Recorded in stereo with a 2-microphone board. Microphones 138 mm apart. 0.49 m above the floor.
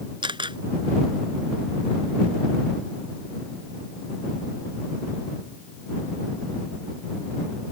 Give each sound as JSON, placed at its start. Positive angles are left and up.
{"t": 0.2, "sound": "a camera shutter", "side_deg": -35}